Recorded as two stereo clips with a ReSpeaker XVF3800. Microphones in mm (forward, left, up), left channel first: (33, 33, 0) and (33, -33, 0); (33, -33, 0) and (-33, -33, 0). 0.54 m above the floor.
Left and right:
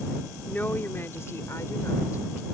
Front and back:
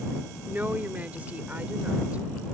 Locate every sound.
0.5 s a woman speaking: 135° left; by 2.5 s 110° left